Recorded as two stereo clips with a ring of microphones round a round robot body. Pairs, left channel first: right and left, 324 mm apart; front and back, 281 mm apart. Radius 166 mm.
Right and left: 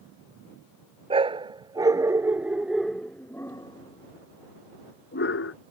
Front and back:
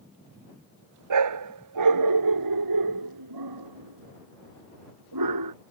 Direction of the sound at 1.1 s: 165° left.